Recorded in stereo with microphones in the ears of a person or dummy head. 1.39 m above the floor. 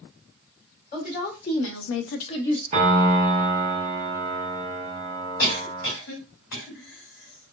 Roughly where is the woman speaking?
Left.